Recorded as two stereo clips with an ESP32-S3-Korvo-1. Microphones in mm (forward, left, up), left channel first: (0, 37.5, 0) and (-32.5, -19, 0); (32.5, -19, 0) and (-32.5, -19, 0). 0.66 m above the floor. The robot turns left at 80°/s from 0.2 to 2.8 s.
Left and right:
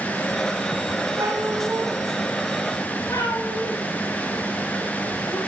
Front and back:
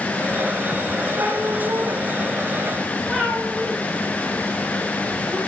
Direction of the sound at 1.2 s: 130° right.